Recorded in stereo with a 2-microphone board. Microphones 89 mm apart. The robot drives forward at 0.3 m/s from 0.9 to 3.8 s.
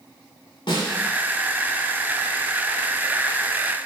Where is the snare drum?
65° left (ahead or behind), 1.0 m.